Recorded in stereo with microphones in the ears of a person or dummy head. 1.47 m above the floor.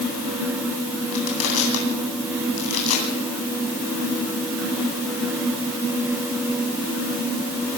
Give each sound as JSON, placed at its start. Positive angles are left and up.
{"t": 1.1, "sound": "crushing", "side_deg": 80, "distance_m": 9.0}